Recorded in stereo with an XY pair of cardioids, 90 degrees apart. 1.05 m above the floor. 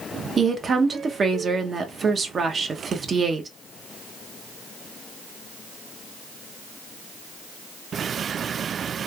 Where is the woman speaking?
45° right, 0.6 m.